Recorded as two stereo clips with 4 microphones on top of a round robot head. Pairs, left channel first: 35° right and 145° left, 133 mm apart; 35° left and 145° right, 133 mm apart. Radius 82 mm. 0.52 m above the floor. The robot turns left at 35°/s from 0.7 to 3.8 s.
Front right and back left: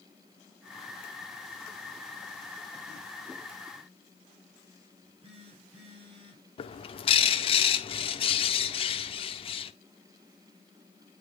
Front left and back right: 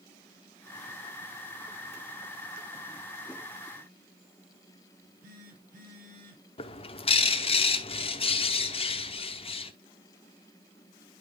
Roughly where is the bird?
Ahead.